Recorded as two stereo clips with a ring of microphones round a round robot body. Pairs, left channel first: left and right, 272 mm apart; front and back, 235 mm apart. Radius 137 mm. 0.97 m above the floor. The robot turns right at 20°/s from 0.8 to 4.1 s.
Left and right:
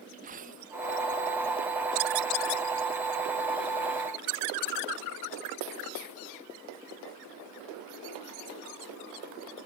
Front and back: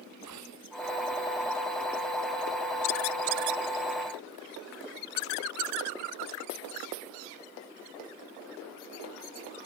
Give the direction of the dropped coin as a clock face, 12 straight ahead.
5 o'clock.